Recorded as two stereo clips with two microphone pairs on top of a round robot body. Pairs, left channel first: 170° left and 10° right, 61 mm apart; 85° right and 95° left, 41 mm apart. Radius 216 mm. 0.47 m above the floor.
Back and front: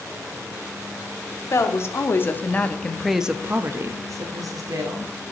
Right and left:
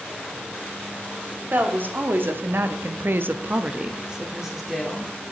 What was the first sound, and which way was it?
A woman speaking, 135° left.